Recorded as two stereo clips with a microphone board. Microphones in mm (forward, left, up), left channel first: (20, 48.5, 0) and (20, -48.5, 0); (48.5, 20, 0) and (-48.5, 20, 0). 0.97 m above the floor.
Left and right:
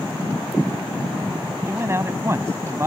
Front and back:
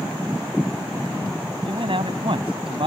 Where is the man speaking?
150° right.